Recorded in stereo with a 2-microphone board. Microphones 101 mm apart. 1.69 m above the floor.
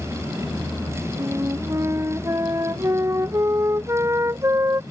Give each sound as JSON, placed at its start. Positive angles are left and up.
{"t": 1.2, "sound": "a flute", "side_deg": -30}